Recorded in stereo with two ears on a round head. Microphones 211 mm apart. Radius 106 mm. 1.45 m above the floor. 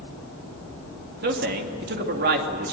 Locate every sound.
1.2 s a man speaking: 50° right (ahead or behind), 3 m